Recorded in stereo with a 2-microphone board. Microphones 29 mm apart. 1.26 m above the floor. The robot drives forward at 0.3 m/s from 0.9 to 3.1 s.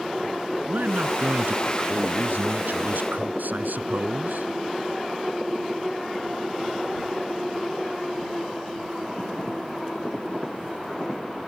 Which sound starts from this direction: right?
A man speaking, at 0.7 s.